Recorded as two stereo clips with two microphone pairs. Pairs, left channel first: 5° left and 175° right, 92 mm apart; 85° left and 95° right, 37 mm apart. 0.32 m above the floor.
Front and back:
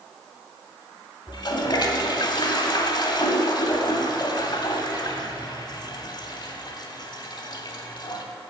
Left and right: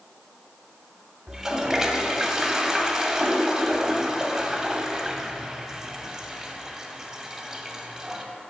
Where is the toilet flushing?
15° right, 0.8 m.